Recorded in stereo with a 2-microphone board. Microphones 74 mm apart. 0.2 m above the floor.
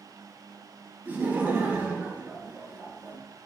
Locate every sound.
1.1 s laughter: 25° right (ahead or behind), 1.1 m